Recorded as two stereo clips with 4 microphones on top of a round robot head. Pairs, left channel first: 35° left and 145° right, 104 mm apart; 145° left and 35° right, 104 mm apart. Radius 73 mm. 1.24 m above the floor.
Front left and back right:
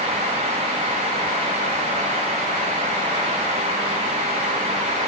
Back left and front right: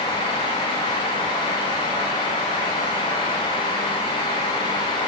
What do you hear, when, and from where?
Only background noise.